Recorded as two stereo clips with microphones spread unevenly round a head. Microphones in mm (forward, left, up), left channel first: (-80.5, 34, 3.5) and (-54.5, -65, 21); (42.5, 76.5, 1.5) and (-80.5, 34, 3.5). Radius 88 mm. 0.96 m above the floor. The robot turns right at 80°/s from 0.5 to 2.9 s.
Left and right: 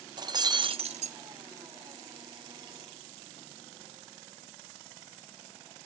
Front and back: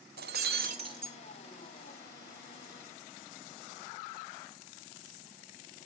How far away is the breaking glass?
About 0.6 m.